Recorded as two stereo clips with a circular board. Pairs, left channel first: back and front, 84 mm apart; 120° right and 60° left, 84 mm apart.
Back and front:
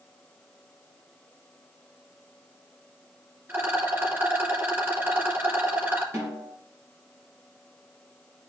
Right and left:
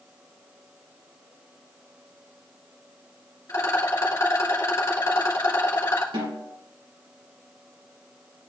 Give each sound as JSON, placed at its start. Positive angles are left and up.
{"t": 3.5, "sound": "a rattle", "azimuth_deg": -65, "distance_m": 2.5}
{"t": 6.1, "sound": "a snare drum", "azimuth_deg": 55, "distance_m": 3.5}